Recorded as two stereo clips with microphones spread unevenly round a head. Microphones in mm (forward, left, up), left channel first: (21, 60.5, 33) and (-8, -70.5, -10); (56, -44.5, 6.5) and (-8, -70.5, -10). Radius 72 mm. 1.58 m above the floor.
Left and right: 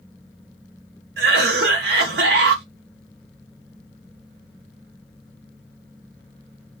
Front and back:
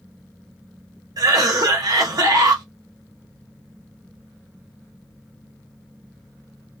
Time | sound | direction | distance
1.2 | a cough | 120° right | 1.1 m